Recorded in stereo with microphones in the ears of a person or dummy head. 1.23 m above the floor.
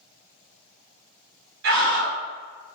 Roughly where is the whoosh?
I don't hear a whoosh.